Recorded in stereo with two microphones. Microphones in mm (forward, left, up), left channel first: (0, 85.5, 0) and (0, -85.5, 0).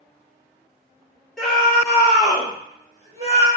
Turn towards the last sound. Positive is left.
turn(degrees=-40)  # may be behind; listen again after turning